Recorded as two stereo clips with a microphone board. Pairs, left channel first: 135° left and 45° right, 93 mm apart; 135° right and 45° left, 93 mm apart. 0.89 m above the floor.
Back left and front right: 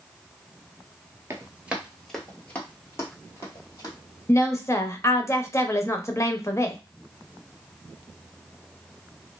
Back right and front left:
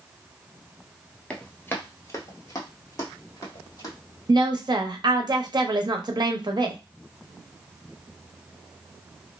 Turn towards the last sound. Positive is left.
turn(degrees=80)